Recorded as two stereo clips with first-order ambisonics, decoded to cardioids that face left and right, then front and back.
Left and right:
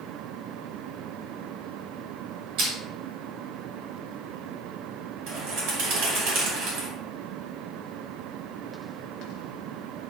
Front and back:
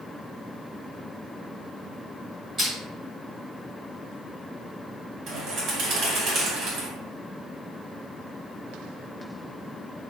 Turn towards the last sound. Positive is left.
turn(degrees=-125)